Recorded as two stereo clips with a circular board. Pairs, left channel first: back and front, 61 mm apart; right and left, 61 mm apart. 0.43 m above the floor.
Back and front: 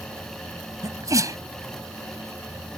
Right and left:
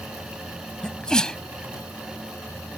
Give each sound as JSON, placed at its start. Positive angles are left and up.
{"t": 0.8, "sound": "a sneeze", "azimuth_deg": -15}